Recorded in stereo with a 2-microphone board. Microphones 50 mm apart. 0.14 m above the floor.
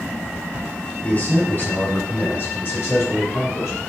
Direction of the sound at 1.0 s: 30° left (ahead or behind).